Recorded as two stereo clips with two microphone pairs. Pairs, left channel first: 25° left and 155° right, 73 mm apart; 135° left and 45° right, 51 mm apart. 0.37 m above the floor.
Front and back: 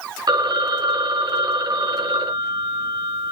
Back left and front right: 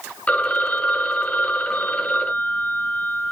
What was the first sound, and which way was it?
A phone ringing, 160° right.